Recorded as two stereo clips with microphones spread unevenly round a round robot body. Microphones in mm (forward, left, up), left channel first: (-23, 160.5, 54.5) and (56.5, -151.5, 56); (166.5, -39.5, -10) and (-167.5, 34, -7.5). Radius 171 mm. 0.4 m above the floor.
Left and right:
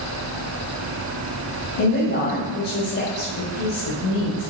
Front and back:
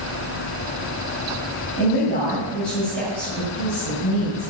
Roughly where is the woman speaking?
Ahead left.